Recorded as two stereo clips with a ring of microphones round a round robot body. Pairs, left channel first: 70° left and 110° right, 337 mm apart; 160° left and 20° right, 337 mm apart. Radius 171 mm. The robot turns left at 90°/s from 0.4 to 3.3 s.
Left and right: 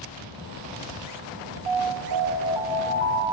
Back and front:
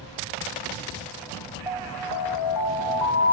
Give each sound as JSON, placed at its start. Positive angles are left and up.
{"t": 1.7, "sound": "an alarm", "azimuth_deg": -105, "distance_m": 4.5}